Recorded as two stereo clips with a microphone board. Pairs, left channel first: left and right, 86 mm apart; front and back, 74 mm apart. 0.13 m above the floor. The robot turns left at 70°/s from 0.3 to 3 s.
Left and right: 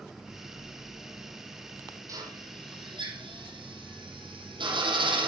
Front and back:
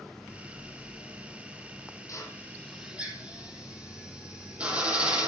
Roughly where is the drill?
Ahead right.